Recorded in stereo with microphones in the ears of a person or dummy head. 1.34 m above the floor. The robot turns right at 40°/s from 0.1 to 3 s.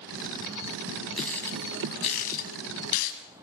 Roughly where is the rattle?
Centre.